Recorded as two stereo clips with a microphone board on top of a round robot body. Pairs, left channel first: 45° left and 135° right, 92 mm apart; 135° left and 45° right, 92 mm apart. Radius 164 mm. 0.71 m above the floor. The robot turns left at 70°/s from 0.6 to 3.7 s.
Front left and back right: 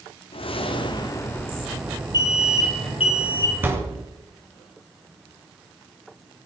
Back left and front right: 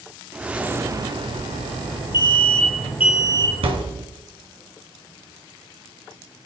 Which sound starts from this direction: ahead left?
A whoosh, at 0.3 s.